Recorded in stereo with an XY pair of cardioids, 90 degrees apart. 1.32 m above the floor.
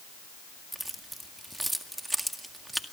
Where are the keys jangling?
10° right, 1.8 m.